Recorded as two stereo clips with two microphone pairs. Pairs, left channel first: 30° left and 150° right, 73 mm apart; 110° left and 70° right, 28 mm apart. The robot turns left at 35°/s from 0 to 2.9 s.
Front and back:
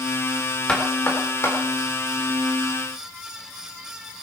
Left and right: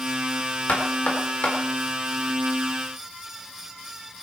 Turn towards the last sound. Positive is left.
turn(degrees=30)